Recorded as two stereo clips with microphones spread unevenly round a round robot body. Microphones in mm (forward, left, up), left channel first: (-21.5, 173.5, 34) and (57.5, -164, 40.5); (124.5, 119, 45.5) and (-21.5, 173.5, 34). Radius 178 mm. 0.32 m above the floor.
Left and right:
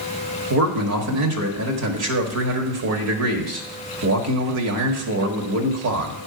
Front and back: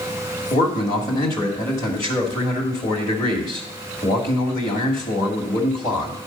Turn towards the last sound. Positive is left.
turn(degrees=-85)